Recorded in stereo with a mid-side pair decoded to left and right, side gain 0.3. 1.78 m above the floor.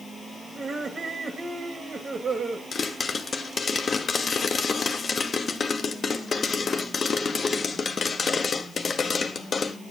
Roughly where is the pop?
Ahead left.